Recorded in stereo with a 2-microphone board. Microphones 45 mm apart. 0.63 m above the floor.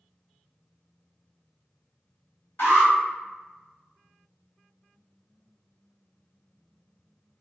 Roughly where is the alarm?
Left.